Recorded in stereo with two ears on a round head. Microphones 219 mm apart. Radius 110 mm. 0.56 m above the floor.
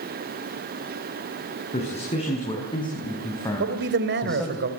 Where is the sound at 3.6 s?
45° right (ahead or behind), 3 m.